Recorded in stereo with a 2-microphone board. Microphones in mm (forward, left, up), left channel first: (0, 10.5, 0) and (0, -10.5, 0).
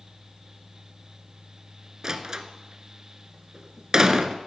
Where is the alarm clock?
I don't hear an alarm clock.